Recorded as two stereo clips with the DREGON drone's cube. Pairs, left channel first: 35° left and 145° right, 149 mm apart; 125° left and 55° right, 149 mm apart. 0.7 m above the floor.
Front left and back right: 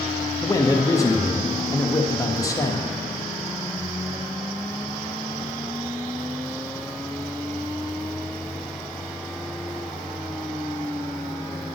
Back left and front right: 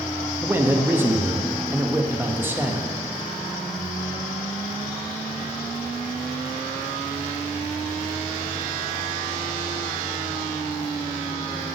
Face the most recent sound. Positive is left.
turn(degrees=0)